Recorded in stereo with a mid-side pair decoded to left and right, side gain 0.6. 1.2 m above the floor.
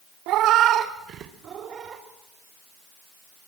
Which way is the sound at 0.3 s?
65° right.